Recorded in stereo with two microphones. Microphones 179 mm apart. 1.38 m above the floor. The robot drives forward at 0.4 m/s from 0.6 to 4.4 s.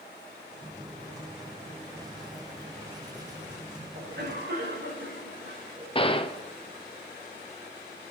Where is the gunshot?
30° left (ahead or behind), 0.6 m.